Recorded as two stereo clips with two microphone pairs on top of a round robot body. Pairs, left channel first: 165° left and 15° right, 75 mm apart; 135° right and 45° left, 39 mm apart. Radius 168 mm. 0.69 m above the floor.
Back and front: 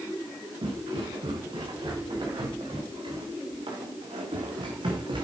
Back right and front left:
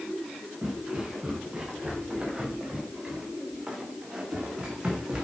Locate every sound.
0.6 s footsteps: 25° right, 5 m; by 5.2 s 30° right, 2.5 m